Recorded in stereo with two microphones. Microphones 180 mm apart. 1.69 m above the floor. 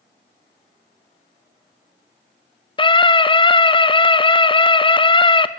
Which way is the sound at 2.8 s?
30° left (ahead or behind).